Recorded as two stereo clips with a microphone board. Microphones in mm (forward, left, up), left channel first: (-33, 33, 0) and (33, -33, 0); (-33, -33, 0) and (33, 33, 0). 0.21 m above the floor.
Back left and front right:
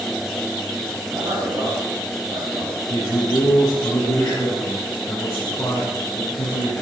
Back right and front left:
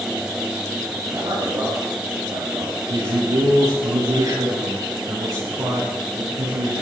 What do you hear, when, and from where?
1.1 s a man speaking: 10° left, 4.5 m
2.9 s a man speaking: 75° left, 7 m